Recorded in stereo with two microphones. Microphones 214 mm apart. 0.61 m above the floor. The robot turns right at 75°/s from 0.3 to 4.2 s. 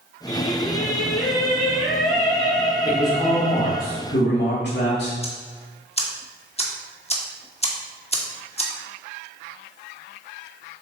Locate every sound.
0.3 s singing: 80° left, 3.5 m; by 3.8 s 20° right, 3.5 m
2.9 s a man speaking: 15° right, 2.0 m; by 5.1 s 90° left, 2.0 m
5.2 s ticking: 30° left (ahead or behind), 1.2 m